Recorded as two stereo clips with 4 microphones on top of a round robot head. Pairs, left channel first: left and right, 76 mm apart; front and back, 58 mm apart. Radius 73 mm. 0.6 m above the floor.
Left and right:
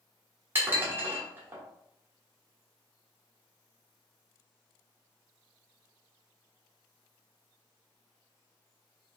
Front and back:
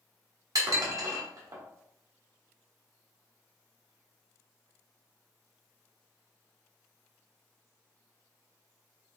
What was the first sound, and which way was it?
Dishes clattering, 155° right.